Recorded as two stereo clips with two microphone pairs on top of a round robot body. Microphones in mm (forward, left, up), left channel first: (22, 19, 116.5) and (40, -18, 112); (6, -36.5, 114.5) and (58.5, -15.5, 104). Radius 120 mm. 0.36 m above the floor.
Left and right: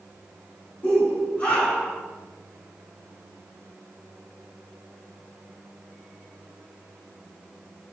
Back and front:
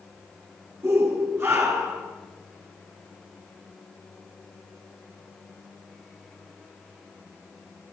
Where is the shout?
65° left, 5.5 m.